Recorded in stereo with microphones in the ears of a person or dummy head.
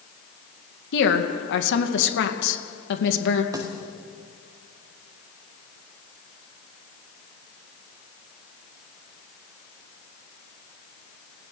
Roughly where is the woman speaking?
Left.